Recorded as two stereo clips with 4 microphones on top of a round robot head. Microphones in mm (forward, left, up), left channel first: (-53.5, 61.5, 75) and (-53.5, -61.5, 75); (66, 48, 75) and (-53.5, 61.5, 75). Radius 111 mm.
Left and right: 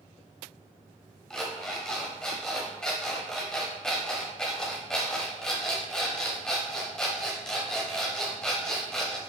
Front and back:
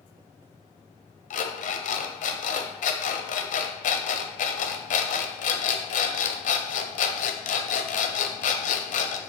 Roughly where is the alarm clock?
Ahead.